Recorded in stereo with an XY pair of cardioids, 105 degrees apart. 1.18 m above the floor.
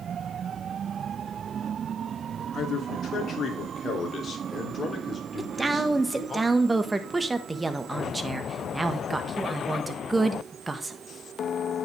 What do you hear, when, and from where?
2.5 s a man speaking: 60° left, 2.5 m; by 6.4 s 25° left, 3.5 m
5.4 s a woman speaking: 20° right, 1.4 m